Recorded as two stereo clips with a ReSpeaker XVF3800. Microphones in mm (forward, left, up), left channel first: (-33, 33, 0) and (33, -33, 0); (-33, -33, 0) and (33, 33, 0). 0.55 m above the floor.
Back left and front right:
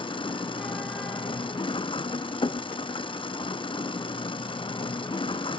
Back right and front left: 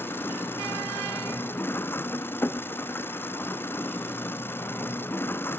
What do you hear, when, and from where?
0.0 s an engine running: 160° left